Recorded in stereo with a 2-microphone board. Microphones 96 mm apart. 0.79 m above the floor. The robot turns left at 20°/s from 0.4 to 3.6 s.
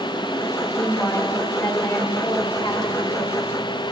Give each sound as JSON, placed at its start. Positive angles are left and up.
{"t": 0.7, "sound": "a woman speaking", "azimuth_deg": 170, "distance_m": 2.5}